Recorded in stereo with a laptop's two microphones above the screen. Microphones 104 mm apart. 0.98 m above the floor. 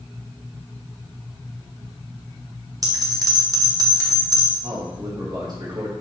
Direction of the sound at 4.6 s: 40° right (ahead or behind).